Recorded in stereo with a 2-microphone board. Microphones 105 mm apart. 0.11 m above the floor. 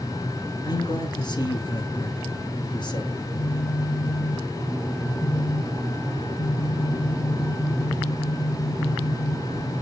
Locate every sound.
0.7 s a man speaking: 45° left (ahead or behind), 1.7 m
3.1 s a phone buzzing: 40° left (ahead or behind), 4.5 m